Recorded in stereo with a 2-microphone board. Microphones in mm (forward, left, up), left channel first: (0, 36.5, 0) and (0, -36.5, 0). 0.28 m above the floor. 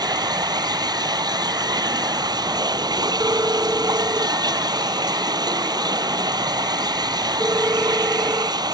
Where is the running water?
80° right.